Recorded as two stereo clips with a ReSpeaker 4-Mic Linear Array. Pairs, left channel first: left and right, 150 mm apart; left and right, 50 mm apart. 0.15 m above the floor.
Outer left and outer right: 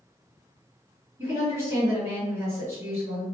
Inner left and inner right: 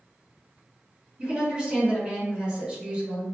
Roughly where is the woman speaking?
Centre.